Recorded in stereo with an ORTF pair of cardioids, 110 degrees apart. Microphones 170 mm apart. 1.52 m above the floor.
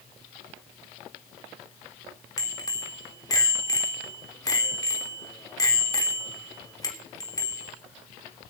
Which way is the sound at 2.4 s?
25° left.